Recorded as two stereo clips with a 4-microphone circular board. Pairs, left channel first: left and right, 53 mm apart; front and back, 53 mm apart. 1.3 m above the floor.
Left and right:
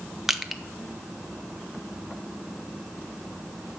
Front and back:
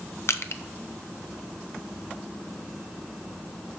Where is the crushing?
5° right, 0.6 m.